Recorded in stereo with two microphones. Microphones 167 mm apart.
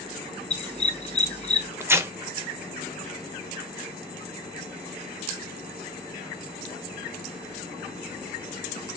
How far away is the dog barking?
About 1.0 m.